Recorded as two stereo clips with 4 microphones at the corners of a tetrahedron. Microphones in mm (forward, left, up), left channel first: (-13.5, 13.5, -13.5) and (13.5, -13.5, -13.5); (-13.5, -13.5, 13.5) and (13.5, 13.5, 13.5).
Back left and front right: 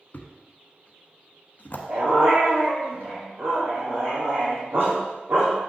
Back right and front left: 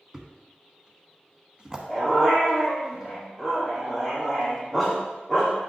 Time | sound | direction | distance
0.1 | a thud | 110° left | 1.0 m
1.9 | a dog barking | 35° right | 3.5 m